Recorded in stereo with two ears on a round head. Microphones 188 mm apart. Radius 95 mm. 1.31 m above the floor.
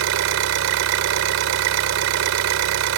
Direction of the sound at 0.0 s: 70° right (ahead or behind).